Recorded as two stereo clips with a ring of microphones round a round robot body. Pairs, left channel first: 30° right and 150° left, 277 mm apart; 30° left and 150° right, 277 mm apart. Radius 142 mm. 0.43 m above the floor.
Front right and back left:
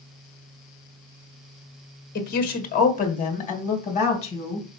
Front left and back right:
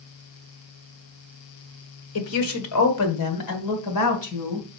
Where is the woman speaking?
20° left, 1.7 m; by 4.7 s 40° left, 3 m.